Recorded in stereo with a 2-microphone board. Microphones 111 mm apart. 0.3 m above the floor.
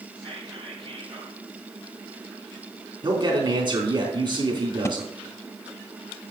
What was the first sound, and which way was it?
Whispering, 50° right (ahead or behind).